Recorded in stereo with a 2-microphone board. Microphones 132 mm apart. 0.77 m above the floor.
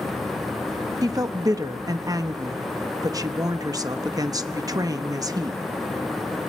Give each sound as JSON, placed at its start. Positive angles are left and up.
{"t": 1.0, "sound": "a woman speaking", "side_deg": -30, "distance_m": 0.8}